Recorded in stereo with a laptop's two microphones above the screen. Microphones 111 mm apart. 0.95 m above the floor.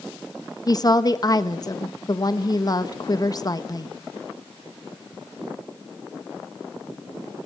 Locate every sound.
0.7 s a woman speaking: 35° left (ahead or behind), 1.3 m